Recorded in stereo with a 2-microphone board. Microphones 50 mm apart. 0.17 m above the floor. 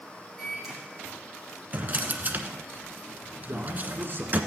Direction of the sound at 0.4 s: 5° left (ahead or behind).